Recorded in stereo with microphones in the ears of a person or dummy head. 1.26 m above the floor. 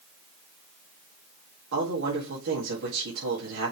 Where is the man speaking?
70° right (ahead or behind), 1.9 m.